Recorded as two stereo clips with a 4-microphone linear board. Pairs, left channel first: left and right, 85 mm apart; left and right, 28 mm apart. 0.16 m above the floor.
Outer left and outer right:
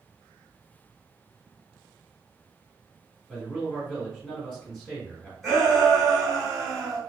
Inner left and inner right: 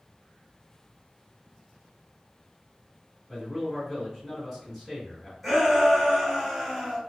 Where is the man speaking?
5° left (ahead or behind), 1.5 m.